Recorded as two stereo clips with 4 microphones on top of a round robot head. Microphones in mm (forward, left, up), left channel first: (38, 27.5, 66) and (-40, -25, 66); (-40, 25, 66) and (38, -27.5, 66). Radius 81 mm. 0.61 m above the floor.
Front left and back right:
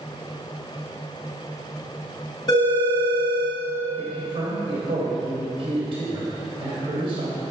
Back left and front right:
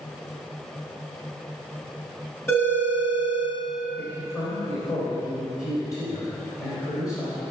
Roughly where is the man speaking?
Behind.